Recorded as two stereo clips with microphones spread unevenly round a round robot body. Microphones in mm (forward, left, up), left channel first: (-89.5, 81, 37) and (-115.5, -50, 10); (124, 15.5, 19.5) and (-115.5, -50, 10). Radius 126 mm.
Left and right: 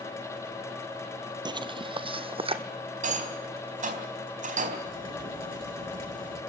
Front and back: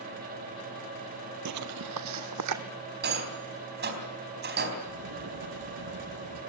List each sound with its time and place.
1.4 s footsteps: 165° right, 0.8 m; by 2.6 s 150° right, 1.7 m
3.0 s a rattle: 115° right, 4 m
4.8 s a crack: 150° right, 8.5 m